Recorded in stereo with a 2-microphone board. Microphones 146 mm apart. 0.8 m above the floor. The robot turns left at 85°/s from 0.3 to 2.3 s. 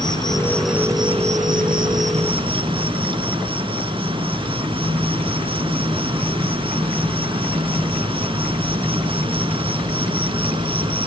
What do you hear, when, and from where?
0.0 s an insect: 30° left, 2.5 m; by 11.1 s 140° right, 2.5 m